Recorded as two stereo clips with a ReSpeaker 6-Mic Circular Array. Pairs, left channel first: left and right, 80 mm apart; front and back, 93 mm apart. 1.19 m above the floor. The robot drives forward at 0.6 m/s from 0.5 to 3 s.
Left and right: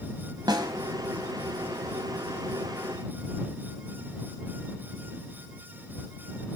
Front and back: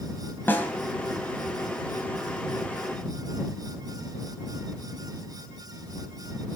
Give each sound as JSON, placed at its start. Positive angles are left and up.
{"t": 0.5, "sound": "a snare drum", "azimuth_deg": -65, "distance_m": 2.5}